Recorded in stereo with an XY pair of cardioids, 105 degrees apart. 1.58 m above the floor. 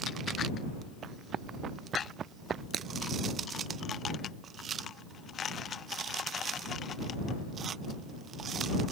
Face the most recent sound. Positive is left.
turn(degrees=-50)